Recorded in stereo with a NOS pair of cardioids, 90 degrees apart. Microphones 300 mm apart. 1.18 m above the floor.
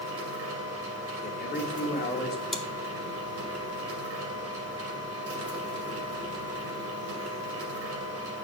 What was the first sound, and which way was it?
A machine running, 55° right.